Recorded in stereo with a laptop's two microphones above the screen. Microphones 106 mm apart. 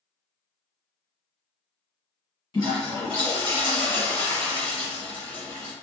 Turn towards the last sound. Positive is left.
turn(degrees=45)  # may be behind; listen again after turning